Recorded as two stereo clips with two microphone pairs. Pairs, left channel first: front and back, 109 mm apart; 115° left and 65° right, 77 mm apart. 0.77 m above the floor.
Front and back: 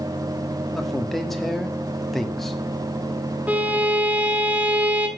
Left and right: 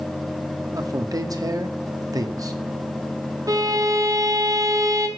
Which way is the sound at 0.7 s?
90° right.